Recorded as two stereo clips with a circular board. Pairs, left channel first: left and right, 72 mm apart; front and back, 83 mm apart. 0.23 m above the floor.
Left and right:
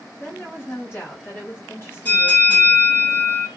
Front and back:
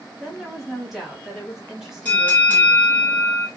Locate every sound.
0.2 s a woman speaking: 100° left, 1.7 m
2.0 s a bell: 60° left, 1.7 m